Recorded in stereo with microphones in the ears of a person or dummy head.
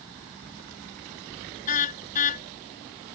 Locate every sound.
1.7 s a car horn: 40° left (ahead or behind)